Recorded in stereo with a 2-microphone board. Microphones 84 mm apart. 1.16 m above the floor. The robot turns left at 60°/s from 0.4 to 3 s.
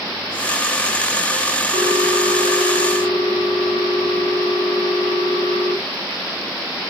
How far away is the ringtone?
About 2 m.